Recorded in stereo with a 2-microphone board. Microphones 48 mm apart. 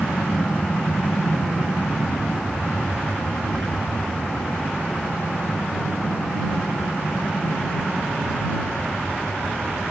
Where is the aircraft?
50° left (ahead or behind); by 9.9 s 75° left (ahead or behind).